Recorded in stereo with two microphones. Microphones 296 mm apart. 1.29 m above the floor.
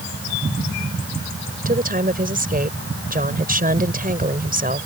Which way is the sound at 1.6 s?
30° right (ahead or behind).